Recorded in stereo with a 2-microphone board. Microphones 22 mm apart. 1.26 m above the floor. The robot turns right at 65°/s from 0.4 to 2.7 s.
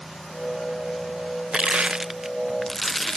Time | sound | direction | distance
1.5 | crushing | 60° right | ?